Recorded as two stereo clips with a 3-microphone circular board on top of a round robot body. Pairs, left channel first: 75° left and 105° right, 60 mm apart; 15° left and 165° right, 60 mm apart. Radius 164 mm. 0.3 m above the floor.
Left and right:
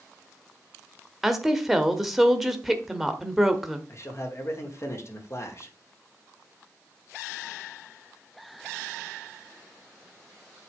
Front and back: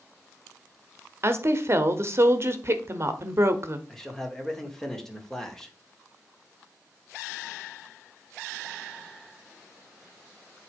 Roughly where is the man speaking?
Left.